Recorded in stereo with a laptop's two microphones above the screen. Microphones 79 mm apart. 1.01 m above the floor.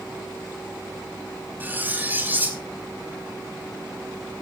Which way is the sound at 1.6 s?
20° right (ahead or behind).